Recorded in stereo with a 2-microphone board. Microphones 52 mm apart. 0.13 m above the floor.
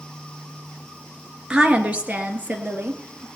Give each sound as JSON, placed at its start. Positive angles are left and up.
{"t": 1.5, "sound": "a woman speaking", "side_deg": -20, "distance_m": 1.8}